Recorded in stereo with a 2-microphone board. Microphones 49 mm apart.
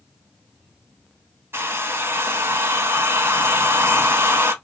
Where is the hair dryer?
55° right (ahead or behind), 0.6 m.